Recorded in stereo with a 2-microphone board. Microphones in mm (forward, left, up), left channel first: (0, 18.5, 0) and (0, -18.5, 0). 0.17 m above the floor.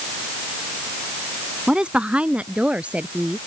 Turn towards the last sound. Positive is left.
turn(degrees=-35)  # may be behind; listen again after turning